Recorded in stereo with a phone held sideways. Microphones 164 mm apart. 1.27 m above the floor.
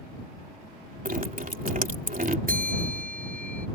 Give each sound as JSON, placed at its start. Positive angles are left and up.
{"t": 1.1, "sound": "dripping", "side_deg": -55}
{"t": 2.5, "sound": "a bell", "side_deg": -60}